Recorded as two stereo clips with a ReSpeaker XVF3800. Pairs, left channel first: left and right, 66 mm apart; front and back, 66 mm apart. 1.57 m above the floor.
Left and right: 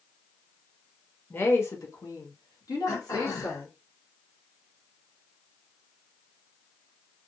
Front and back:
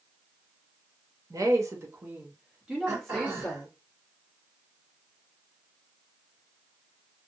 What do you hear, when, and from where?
1.3 s a woman speaking: 150° left, 1.0 m; by 3.7 s 75° left, 1.5 m
2.9 s throat clearing: 115° left, 1.5 m